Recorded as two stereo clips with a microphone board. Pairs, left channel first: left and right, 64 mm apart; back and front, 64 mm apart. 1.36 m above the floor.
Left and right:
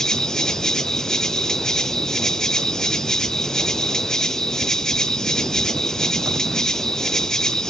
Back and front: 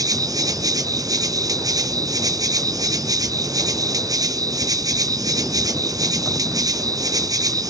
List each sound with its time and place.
0.0 s an insect: 10° left, 0.7 m